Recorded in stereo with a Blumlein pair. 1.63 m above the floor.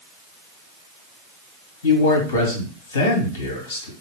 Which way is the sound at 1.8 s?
60° left.